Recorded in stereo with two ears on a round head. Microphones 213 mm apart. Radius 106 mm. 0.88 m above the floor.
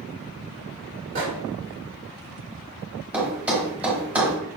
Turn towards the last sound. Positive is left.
turn(degrees=-5)  # may be behind; listen again after turning